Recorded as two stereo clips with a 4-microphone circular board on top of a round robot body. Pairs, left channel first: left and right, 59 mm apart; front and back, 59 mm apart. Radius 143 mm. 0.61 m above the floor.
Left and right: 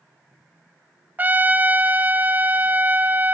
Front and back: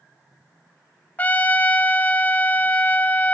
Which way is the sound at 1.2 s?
45° right.